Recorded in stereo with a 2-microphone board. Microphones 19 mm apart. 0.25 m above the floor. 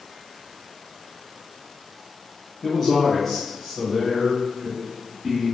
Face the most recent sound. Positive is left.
turn(degrees=-5)  # may be behind; listen again after turning